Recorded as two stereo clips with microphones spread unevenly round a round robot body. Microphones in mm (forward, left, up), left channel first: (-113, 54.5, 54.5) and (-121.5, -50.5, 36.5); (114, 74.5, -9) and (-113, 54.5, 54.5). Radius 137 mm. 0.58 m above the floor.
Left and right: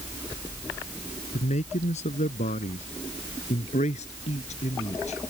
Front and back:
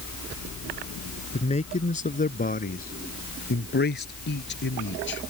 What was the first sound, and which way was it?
A man speaking, 70° left.